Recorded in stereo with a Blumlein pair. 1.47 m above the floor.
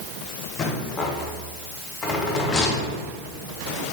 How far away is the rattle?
About 0.6 m.